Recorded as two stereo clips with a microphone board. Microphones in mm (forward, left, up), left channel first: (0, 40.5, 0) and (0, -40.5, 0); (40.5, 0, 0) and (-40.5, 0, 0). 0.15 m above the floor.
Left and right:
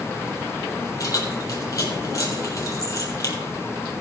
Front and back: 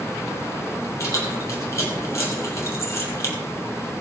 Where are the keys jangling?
50° left, 3.5 m.